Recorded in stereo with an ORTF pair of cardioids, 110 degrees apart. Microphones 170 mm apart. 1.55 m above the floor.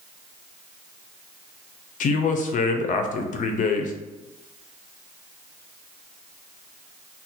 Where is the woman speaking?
50° left, 0.6 m.